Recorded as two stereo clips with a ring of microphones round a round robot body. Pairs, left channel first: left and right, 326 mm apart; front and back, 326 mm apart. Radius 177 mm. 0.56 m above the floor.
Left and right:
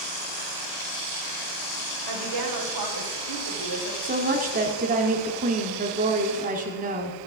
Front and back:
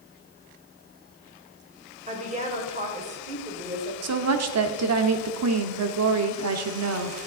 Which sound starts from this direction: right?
A woman speaking, at 2.1 s.